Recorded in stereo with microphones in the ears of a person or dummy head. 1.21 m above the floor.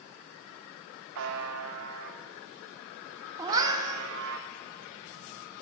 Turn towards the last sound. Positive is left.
turn(degrees=-15)  # may be behind; listen again after turning